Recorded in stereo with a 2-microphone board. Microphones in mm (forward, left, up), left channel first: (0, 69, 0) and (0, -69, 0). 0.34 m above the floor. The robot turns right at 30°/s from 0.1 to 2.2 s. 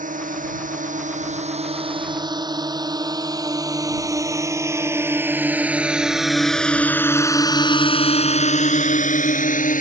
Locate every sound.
0.0 s a drone: 80° right; by 9.8 s 80° left